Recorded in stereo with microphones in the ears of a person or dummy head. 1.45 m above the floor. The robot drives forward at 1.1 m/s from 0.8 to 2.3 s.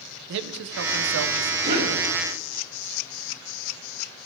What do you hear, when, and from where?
0.3 s a man speaking: 70° right (ahead or behind), 0.8 m; by 1.5 s 55° right (ahead or behind), 0.9 m
1.6 s a cough: 50° right (ahead or behind), 3.5 m; by 2.0 s 55° right (ahead or behind), 3 m